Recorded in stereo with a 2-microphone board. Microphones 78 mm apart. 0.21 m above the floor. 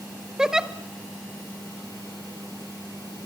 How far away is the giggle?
About 1.0 m.